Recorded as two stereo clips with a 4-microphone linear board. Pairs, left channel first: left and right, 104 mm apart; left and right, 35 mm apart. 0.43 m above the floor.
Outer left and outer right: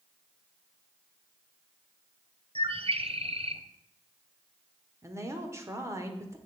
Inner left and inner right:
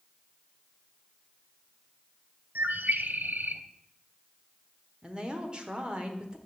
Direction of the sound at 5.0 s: 25° right (ahead or behind).